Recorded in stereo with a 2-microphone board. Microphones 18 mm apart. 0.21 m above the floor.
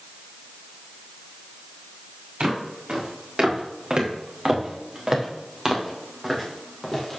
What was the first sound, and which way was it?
Footsteps, 65° right (ahead or behind).